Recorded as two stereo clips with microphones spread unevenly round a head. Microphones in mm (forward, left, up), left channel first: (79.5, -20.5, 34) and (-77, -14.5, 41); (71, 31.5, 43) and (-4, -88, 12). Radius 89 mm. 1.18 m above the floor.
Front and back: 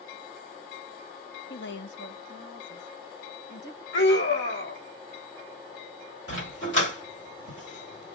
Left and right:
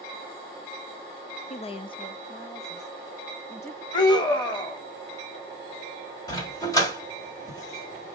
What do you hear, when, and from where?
1.5 s a woman speaking: 10° left, 0.6 m; by 3.8 s 15° right, 1.9 m
3.9 s a scream: 5° right, 2.5 m
6.3 s a dog barking: 10° left, 1.5 m